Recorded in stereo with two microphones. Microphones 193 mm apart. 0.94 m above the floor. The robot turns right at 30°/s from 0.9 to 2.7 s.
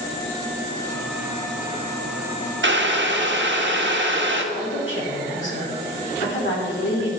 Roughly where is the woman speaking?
Left.